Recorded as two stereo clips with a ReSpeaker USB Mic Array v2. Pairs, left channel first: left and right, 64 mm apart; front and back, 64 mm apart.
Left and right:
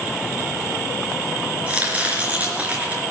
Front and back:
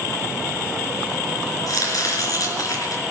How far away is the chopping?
About 4 m.